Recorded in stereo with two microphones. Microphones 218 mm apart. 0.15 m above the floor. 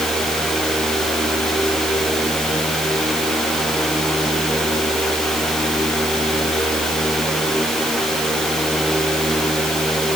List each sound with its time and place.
Only background noise.